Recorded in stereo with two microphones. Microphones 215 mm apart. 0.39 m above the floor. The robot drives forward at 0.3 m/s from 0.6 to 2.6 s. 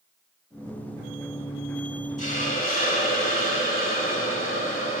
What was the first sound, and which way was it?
A hiss, 40° left (ahead or behind).